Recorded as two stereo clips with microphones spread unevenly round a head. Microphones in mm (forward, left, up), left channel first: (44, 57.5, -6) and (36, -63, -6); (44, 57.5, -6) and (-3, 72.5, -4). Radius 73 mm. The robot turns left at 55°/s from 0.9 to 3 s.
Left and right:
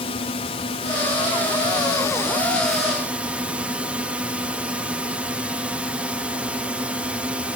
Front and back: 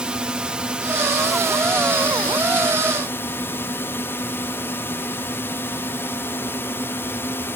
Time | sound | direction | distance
0.0 | a drone | 100° left | ?